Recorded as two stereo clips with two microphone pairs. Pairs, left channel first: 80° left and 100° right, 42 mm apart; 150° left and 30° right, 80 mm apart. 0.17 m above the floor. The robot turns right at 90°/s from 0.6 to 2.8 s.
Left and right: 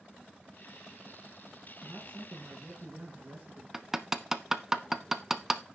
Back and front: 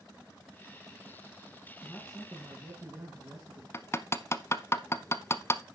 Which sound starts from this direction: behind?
Hammering, at 3.7 s.